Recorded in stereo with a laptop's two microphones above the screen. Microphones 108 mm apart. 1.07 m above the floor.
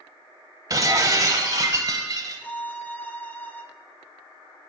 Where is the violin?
15° left (ahead or behind), 0.8 m.